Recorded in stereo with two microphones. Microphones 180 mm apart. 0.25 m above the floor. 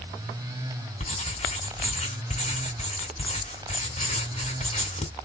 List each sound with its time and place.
1.0 s writing: 35° left (ahead or behind), 2 m